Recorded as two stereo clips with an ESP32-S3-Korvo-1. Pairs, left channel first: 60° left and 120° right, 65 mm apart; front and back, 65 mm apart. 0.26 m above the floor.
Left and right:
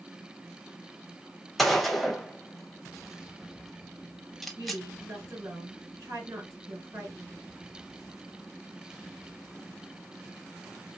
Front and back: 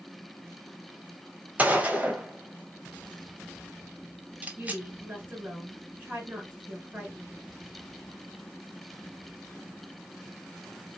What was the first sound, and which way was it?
A gunshot, 150° left.